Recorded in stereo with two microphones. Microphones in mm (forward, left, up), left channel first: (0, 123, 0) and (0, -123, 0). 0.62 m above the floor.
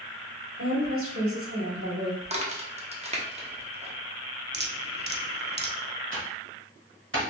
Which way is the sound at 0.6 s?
60° right (ahead or behind).